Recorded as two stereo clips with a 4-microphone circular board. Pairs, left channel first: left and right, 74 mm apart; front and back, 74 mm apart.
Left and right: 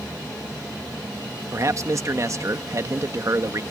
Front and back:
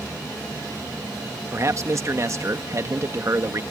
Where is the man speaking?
135° right.